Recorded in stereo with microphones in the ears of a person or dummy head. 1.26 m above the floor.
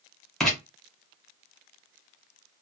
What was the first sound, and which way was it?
Writing, centre (ahead or behind).